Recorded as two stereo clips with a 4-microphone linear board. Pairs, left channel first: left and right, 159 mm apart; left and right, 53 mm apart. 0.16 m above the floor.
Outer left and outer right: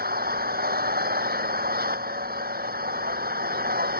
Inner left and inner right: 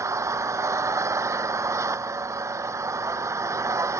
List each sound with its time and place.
0.0 s an engine running: 80° right